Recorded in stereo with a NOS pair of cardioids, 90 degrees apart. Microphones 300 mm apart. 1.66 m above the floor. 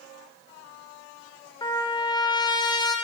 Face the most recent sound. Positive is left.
turn(degrees=15)